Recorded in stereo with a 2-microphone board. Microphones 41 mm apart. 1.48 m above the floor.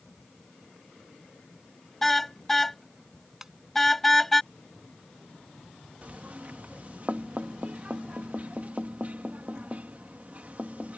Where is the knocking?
40° right (ahead or behind).